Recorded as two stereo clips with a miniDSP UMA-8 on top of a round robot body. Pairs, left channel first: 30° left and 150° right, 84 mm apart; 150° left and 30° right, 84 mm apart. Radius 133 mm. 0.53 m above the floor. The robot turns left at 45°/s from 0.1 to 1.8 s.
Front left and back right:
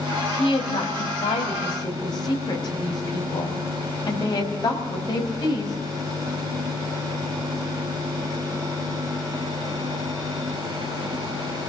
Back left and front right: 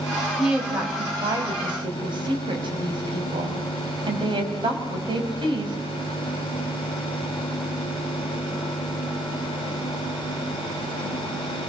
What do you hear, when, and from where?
0.4 s a woman speaking: 55° left, 4.5 m; by 5.8 s 5° right, 4.5 m